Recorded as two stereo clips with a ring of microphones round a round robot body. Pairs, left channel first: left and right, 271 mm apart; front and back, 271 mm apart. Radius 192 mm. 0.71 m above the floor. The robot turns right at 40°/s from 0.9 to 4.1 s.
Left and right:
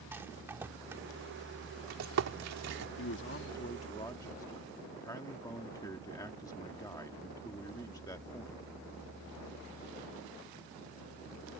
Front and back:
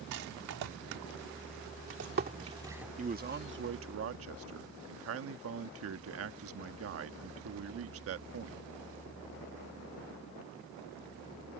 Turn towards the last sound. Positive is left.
turn(degrees=165)